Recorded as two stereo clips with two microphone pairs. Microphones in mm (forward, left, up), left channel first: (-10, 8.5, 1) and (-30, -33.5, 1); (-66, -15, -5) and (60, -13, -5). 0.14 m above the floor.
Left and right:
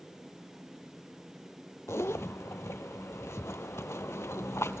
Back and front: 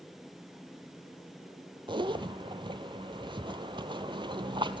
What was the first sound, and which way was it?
A zipper, 50° left.